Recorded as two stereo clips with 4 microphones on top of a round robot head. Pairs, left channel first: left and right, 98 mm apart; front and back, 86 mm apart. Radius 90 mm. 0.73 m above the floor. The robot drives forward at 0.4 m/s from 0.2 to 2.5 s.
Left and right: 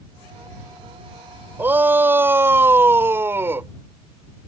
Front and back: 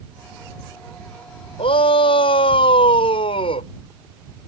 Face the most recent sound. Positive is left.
turn(degrees=-25)